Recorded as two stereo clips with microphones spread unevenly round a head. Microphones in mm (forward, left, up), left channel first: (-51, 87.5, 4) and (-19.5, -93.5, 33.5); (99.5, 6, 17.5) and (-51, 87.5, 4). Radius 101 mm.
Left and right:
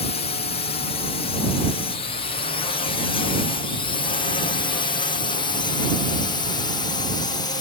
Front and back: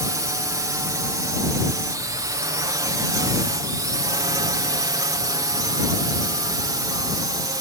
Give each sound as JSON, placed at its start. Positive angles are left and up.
{"t": 0.0, "sound": "a drone", "azimuth_deg": 95}